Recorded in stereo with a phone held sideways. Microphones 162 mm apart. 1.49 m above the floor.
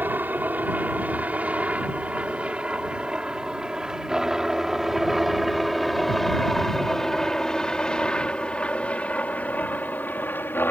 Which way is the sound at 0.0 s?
10° right (ahead or behind).